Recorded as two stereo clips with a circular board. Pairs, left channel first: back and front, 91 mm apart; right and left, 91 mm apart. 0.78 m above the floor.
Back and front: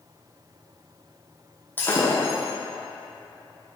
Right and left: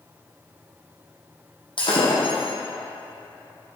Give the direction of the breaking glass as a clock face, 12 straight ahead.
4 o'clock.